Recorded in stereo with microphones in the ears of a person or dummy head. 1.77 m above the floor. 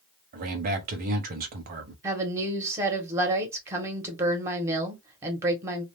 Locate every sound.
0.3 s a man speaking: 50° right (ahead or behind), 0.9 m
2.0 s a woman speaking: 15° right (ahead or behind), 1.3 m